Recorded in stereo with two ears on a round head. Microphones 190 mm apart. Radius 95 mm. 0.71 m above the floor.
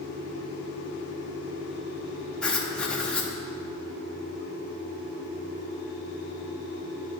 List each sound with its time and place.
2.4 s writing: 5° left (ahead or behind), 0.7 m